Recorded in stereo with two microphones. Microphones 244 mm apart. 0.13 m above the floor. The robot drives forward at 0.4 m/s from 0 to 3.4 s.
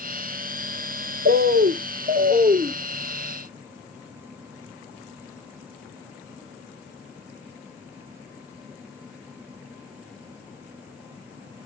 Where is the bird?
40° right (ahead or behind), 0.5 m; by 2.8 s 25° right (ahead or behind), 0.8 m.